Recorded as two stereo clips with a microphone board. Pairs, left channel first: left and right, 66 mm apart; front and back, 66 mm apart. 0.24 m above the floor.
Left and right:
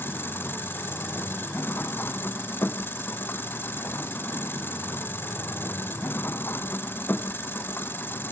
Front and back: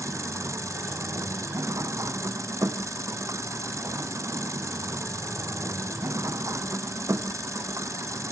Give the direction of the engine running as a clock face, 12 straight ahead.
7 o'clock.